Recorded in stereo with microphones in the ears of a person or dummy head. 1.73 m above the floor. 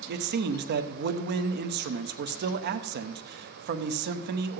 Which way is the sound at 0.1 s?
60° right (ahead or behind).